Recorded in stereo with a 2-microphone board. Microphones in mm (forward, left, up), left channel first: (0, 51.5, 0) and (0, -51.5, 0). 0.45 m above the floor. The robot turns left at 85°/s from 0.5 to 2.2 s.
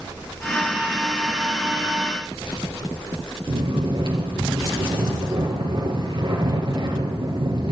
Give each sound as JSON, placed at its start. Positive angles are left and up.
{"t": 3.5, "sound": "snoring", "side_deg": -60, "distance_m": 3.0}